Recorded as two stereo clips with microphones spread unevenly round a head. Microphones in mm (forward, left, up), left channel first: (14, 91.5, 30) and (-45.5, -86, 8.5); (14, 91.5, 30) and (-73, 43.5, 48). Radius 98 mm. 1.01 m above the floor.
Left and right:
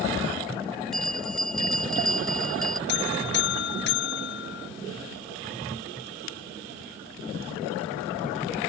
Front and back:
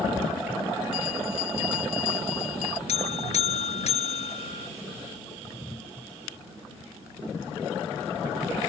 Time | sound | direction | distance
0.9 | a bell | 15° right | ?
2.9 | a buzzer | 35° left | ?